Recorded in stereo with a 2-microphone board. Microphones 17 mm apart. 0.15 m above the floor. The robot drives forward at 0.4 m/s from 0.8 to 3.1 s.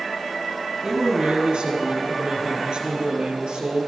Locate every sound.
0.8 s a man speaking: 70° right (ahead or behind), 3 m; by 3.9 s 65° right (ahead or behind), 3 m